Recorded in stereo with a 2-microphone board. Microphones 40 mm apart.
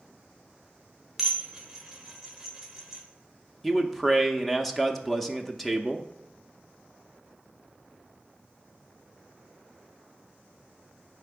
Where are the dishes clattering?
10° right (ahead or behind), 1.3 m.